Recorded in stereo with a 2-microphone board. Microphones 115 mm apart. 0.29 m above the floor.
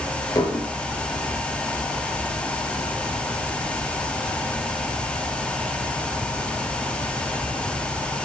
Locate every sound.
0.3 s dishes clattering: 30° left (ahead or behind), 3.5 m